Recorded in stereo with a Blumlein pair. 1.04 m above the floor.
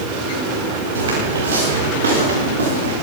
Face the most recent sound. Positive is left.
turn(degrees=-75)